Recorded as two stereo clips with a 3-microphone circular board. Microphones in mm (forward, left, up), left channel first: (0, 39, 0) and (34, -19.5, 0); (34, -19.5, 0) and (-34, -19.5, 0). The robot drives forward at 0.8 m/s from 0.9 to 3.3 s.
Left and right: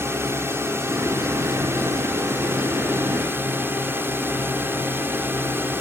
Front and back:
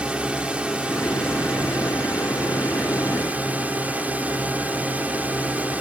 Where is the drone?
110° right; by 5.8 s 115° right.